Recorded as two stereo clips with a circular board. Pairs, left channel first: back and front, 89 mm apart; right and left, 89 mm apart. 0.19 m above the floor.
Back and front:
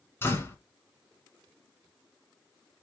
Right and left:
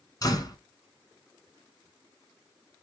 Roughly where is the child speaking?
I don't hear a child speaking.